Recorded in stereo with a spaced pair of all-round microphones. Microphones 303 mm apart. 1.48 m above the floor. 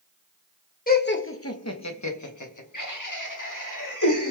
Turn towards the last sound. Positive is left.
turn(degrees=80)